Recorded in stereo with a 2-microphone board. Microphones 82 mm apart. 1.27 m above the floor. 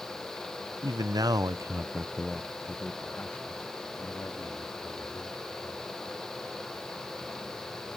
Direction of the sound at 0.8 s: 50° right (ahead or behind).